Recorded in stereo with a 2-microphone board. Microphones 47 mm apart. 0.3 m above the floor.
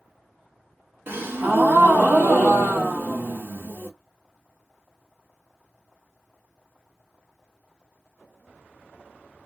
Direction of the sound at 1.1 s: 55° right (ahead or behind).